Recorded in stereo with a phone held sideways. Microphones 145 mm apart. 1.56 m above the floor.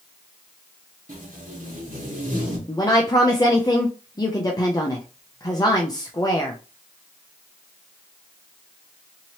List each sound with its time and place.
1.1 s tape being pulled: 60° right (ahead or behind), 1.4 m
2.7 s a woman speaking: 25° left (ahead or behind), 0.5 m